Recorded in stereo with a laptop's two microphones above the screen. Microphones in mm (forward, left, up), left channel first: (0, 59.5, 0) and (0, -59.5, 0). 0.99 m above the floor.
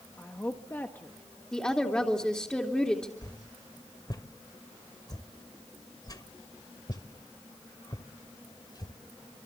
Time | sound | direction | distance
0.2 | a woman speaking | 15° left (ahead or behind) | 1.2 m
1.5 | a woman speaking | 10° left (ahead or behind) | 3 m
3.2 | a whoosh | 35° left (ahead or behind) | 2 m